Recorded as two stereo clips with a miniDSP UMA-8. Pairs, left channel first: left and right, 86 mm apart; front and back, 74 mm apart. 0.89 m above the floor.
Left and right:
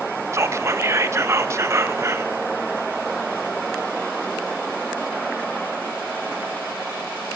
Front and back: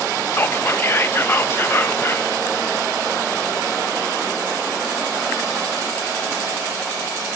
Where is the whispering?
50° right, 0.6 m.